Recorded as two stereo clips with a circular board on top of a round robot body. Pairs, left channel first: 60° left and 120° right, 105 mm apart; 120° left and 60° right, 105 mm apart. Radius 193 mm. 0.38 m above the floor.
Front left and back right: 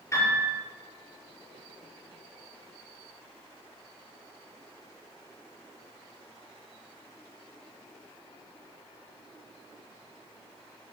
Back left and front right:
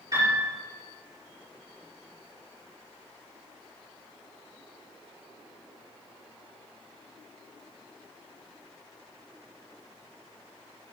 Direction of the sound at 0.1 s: 5° right.